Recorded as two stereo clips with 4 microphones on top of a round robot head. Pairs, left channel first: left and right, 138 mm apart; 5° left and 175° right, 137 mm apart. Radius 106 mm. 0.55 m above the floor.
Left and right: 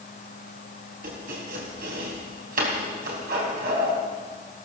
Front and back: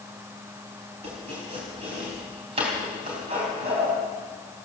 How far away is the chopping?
About 3.5 m.